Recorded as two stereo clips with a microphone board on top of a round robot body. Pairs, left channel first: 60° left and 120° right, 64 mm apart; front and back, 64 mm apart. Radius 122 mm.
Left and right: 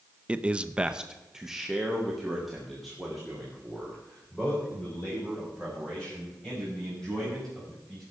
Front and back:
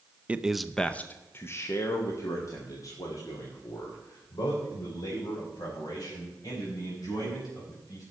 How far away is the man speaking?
About 0.8 m.